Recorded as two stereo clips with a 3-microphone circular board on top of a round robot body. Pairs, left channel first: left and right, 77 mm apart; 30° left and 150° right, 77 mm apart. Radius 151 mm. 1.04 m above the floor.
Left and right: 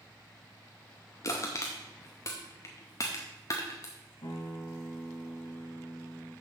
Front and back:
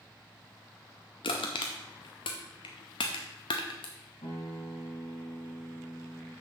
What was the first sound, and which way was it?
Crushing, 35° left.